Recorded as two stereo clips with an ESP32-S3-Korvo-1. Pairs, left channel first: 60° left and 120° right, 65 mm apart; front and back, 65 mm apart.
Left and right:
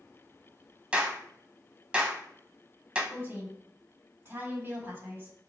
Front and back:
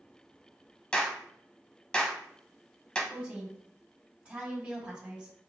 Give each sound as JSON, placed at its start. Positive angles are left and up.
{"t": 0.9, "sound": "a clap", "azimuth_deg": -65, "distance_m": 0.9}
{"t": 3.1, "sound": "a woman speaking", "azimuth_deg": -120, "distance_m": 1.7}